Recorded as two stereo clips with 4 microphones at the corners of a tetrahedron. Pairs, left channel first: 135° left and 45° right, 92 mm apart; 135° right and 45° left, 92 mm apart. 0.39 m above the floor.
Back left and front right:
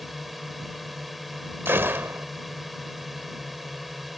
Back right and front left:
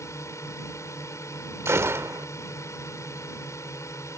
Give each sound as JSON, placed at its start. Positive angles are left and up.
{"t": 0.0, "sound": "a drone", "azimuth_deg": -135}
{"t": 1.6, "sound": "a gunshot", "azimuth_deg": 5}